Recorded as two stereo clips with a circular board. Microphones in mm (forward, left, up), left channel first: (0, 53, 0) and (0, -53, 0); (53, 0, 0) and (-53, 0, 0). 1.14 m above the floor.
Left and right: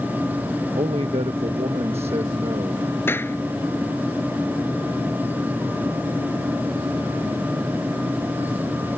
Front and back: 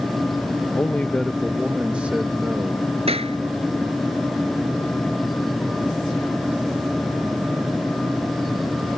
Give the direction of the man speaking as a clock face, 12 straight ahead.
2 o'clock.